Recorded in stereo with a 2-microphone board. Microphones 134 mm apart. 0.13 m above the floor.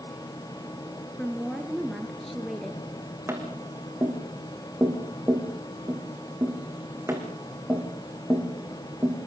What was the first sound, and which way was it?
A woman speaking, centre (ahead or behind).